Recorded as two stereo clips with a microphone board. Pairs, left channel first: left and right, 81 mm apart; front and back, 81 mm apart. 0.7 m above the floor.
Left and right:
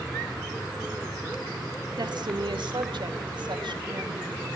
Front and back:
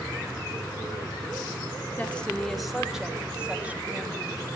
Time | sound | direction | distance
2.0 | a woman speaking | 70° right | 1.7 m